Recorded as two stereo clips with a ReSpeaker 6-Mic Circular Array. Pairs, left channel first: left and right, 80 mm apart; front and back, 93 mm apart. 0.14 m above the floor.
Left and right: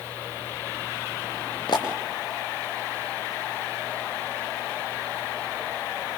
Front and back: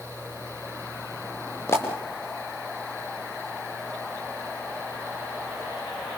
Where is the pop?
65° left, 5.5 m.